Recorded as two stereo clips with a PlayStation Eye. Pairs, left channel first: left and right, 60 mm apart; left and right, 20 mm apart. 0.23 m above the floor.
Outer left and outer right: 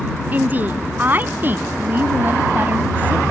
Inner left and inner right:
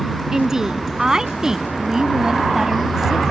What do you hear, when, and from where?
0.3 s a woman speaking: 30° right (ahead or behind)